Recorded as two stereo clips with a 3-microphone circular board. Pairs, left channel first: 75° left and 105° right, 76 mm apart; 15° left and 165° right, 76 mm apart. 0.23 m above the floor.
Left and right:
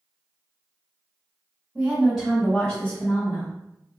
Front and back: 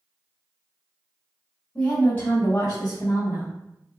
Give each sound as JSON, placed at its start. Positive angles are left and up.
{"t": 1.8, "sound": "a woman speaking", "azimuth_deg": -55, "distance_m": 1.2}